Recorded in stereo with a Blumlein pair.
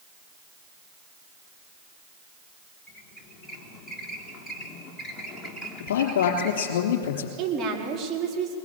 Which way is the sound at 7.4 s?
25° right.